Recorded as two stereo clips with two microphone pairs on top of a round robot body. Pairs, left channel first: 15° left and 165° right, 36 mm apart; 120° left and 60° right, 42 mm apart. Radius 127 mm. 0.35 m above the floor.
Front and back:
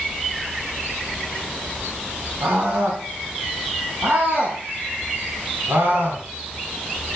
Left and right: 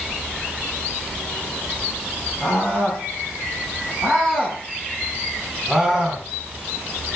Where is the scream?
Straight behind, 4 m; by 6.2 s 150° right, 4 m.